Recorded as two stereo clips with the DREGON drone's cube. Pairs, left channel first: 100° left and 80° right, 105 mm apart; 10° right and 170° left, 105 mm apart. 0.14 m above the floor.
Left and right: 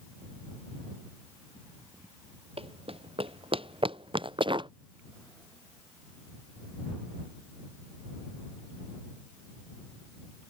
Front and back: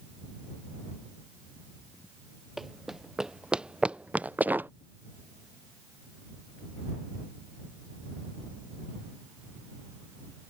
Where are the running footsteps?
105° right; by 4.7 s 120° right.